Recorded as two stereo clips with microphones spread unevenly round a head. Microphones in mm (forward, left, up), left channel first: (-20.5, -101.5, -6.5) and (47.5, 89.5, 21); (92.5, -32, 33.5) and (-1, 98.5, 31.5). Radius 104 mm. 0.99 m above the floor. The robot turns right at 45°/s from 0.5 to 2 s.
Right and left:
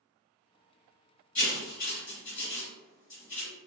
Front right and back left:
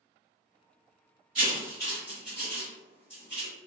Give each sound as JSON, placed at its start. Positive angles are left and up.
{"t": 1.4, "sound": "writing", "azimuth_deg": 180, "distance_m": 2.0}